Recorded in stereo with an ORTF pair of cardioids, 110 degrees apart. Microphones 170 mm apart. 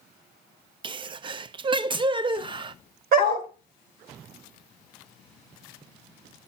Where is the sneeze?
30° right, 0.6 m.